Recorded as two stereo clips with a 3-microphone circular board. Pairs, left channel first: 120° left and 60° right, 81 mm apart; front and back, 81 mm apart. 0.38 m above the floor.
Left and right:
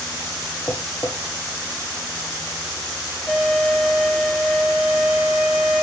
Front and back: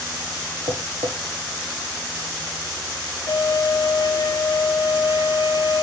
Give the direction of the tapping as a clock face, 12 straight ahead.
6 o'clock.